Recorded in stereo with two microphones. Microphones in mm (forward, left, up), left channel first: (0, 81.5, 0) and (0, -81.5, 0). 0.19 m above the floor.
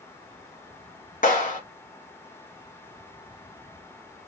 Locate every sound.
1.2 s a clap: 50° left (ahead or behind), 2 m